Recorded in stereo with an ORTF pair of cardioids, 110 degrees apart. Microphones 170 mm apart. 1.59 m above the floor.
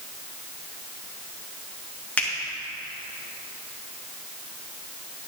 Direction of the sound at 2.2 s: 10° left.